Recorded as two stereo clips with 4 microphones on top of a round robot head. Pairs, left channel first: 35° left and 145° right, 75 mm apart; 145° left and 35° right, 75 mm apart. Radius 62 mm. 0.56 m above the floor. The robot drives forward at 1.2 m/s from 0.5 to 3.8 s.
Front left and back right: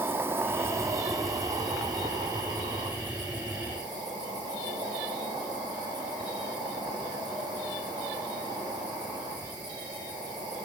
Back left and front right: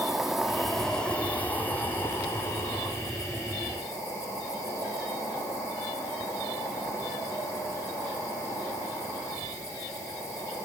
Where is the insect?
115° right, 1.7 m; by 10.7 s 170° right, 4.5 m.